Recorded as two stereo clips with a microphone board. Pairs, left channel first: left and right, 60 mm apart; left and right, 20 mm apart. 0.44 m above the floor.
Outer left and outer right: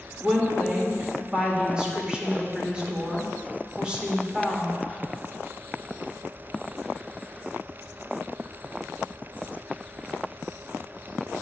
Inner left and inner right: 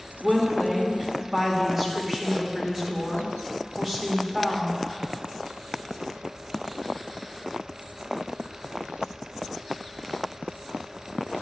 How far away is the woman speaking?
About 1.4 m.